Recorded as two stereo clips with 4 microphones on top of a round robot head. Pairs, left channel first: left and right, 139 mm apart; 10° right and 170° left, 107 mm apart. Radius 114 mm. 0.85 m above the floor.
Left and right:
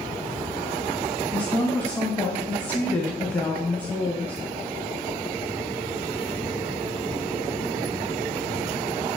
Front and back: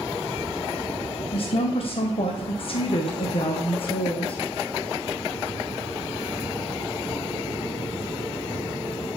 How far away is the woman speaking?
About 0.5 m.